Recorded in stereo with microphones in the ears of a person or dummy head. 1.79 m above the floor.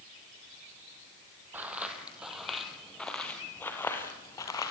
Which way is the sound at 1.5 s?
5° right (ahead or behind).